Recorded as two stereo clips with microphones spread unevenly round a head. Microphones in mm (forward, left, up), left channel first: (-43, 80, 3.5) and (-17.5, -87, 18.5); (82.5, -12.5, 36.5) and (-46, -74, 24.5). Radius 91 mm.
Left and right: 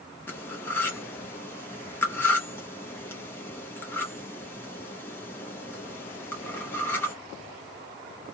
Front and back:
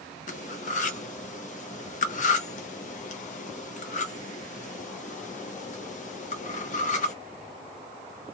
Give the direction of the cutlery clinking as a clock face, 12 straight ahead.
11 o'clock.